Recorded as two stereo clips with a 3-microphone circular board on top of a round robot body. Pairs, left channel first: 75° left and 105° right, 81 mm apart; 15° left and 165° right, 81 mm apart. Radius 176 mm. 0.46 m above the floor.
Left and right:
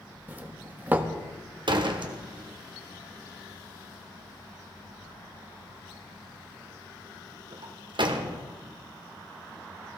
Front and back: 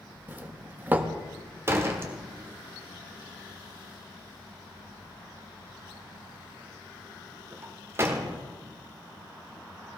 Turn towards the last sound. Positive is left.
turn(degrees=-105)